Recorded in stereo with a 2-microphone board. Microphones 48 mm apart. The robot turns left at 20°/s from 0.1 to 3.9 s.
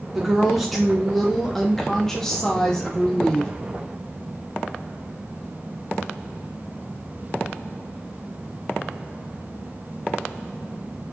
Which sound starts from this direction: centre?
A woman speaking, at 0.1 s.